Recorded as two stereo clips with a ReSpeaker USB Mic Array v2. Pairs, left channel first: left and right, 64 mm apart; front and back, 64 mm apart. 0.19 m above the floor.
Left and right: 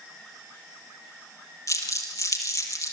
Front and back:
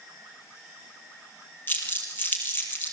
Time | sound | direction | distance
1.7 | crumpling | 60° left | 3.5 m